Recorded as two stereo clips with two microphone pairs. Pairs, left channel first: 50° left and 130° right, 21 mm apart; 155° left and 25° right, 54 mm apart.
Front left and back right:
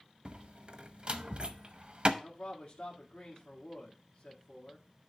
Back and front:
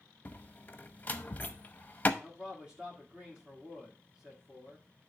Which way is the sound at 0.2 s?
155° right.